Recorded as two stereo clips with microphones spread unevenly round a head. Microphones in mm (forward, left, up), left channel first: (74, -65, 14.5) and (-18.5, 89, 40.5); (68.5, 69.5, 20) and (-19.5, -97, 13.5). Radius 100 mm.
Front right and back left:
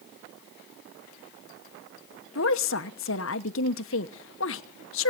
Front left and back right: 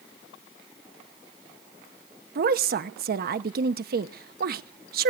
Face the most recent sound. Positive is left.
turn(degrees=-80)